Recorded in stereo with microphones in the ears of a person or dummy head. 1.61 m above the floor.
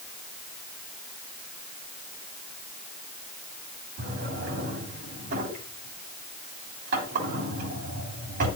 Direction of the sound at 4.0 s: 45° right (ahead or behind).